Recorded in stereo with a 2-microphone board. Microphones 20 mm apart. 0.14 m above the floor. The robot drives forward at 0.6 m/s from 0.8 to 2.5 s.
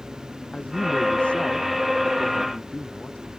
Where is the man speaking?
80° left.